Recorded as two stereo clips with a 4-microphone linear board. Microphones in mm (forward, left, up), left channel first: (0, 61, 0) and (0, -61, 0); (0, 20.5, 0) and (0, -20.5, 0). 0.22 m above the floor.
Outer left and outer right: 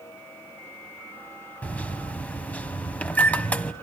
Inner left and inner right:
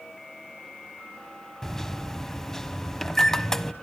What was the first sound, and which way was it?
A microwave, 10° left (ahead or behind).